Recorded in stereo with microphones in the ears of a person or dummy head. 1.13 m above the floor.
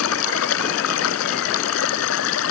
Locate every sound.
0.0 s running water: 90° left